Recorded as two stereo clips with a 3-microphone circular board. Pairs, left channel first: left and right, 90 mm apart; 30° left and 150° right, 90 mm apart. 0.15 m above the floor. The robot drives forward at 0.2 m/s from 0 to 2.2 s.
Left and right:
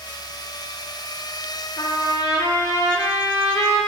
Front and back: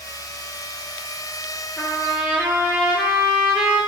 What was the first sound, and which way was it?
A trumpet, 125° left.